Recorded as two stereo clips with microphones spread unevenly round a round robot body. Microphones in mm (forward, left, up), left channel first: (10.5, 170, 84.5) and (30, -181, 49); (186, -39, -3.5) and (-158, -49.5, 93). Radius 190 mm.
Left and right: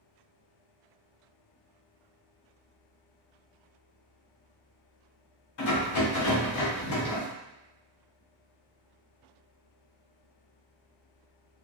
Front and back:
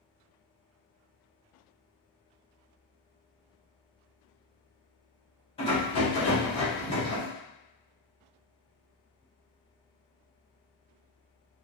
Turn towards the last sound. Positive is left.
turn(degrees=60)